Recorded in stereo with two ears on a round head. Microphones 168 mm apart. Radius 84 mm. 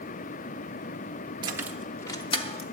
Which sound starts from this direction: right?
Keys jangling, at 1.4 s.